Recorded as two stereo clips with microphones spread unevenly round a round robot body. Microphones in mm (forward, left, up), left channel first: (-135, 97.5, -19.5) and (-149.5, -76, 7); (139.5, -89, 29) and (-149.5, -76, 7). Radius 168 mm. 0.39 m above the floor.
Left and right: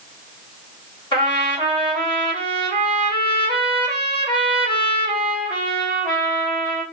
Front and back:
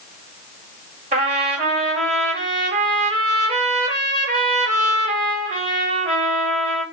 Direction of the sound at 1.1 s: 125° left.